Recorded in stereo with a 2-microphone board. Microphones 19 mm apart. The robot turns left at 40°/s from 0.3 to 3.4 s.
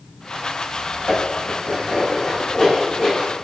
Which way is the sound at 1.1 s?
80° left.